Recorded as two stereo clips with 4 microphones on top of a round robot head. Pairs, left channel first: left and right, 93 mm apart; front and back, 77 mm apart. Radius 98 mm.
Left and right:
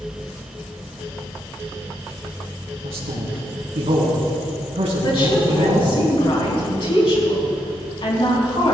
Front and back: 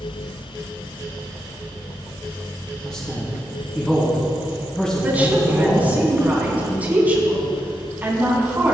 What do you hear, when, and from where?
2.8 s a man speaking: 85° right, 4 m
5.0 s a woman speaking: 110° left, 4 m